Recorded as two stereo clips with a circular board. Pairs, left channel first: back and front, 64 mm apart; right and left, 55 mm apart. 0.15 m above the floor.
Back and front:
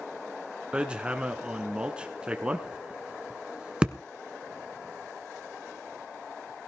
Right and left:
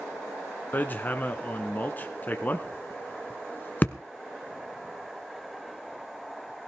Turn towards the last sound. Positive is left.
turn(degrees=-60)